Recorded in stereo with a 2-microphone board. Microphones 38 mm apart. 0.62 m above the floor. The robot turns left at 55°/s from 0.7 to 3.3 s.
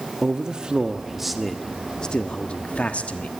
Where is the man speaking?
145° right, 1.0 m; by 3.3 s 70° left, 1.0 m.